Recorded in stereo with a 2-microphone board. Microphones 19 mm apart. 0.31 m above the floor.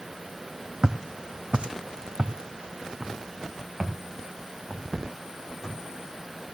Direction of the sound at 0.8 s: 40° right (ahead or behind).